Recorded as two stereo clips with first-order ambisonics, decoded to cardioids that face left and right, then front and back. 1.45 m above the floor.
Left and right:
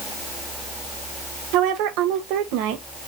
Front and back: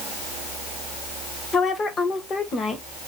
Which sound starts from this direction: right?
A woman speaking, at 1.5 s.